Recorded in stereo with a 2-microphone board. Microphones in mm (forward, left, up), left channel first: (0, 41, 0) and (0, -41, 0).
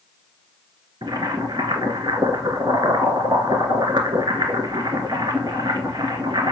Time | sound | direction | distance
1.0 | boiling | 65° right (ahead or behind) | 1.9 m